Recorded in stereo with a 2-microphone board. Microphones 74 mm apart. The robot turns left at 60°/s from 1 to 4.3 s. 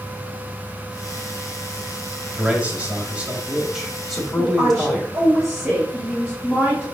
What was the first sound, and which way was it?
A man speaking, 20° right (ahead or behind).